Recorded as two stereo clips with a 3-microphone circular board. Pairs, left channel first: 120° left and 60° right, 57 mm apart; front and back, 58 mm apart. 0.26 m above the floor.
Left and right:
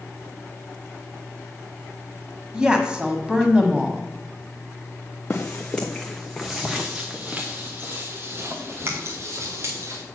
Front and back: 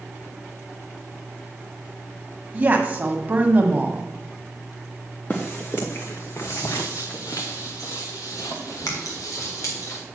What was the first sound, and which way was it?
A woman speaking, 130° right.